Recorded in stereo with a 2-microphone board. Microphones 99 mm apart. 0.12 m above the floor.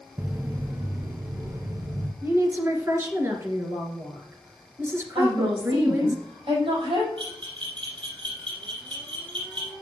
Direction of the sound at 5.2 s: 65° right (ahead or behind).